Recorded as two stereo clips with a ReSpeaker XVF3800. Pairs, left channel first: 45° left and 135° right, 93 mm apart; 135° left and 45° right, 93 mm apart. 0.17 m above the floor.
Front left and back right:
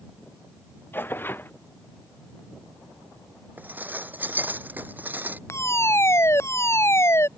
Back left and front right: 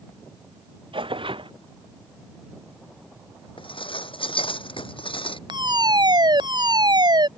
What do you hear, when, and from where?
0.9 s tearing paper: 25° right
3.6 s dishes clattering: 155° left
5.5 s a fire alarm: 15° right